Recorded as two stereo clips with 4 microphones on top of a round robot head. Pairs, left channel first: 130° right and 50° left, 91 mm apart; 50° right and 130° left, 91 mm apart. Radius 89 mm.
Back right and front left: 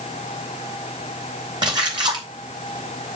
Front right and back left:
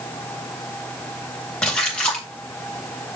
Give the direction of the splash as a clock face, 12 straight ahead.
11 o'clock.